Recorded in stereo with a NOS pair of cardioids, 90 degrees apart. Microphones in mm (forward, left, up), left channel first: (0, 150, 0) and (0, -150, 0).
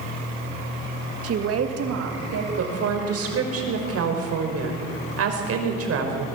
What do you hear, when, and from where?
1.2 s a woman speaking: 55° right, 2 m; by 2.5 s 65° right, 3.5 m
2.6 s a woman speaking: 55° right, 5 m